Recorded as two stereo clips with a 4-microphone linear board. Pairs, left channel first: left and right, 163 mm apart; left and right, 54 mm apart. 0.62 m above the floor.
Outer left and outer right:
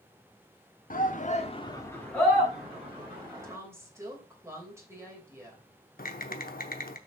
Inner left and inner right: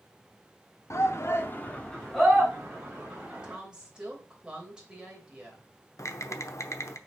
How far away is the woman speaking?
About 3 m.